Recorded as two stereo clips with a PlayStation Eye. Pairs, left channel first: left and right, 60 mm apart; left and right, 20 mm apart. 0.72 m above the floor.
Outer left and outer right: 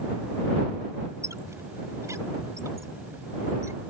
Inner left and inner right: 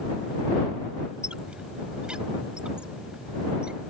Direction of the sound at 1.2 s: 70° right (ahead or behind).